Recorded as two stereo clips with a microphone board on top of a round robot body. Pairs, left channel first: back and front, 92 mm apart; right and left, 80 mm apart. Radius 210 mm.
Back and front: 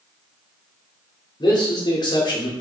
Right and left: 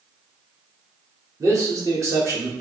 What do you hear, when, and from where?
1.4 s a man speaking: 140° left, 1.4 m